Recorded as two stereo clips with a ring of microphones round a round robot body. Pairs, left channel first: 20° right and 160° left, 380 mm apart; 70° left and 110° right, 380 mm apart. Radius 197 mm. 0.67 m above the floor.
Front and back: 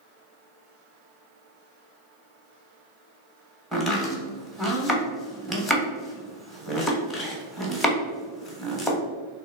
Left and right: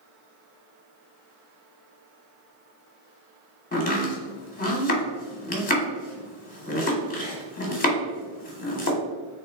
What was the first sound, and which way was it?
Chopping, 65° left.